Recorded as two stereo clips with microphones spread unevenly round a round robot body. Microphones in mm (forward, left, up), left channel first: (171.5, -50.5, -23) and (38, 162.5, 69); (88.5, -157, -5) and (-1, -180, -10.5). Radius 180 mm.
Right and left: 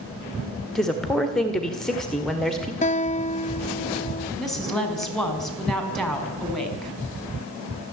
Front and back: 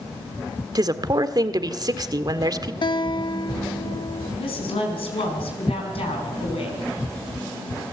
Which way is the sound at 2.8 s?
10° right.